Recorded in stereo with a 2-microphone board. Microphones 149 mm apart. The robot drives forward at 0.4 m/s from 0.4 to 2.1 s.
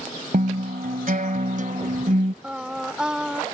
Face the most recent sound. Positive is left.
turn(degrees=-5)  # may be behind; listen again after turning